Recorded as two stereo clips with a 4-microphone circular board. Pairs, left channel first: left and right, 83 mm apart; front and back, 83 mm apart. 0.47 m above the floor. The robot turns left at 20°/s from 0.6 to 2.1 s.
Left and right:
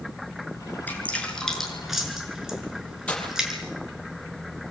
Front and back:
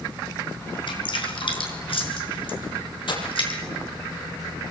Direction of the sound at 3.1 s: 15° left.